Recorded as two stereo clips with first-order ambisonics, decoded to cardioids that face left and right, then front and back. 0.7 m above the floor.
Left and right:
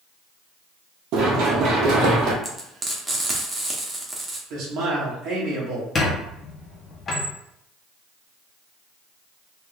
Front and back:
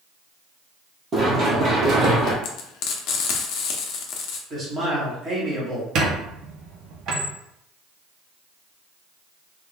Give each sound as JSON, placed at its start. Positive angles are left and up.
{"t": 1.1, "sound": "running footsteps", "azimuth_deg": -115, "distance_m": 1.2}
{"t": 2.4, "sound": "frying", "azimuth_deg": -10, "distance_m": 0.7}
{"t": 4.5, "sound": "a man speaking", "azimuth_deg": -120, "distance_m": 1.5}
{"t": 6.0, "sound": "a squeak", "azimuth_deg": 150, "distance_m": 0.7}